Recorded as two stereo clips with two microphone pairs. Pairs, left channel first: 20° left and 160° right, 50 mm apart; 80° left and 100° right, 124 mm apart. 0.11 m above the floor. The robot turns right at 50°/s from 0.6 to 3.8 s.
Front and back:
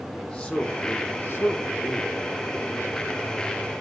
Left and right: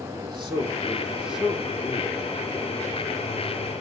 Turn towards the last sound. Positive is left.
turn(degrees=110)